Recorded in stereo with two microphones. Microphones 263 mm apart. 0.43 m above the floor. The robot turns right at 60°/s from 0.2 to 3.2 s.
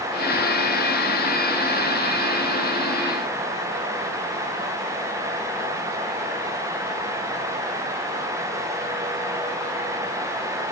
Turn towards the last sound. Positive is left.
No sound to turn to.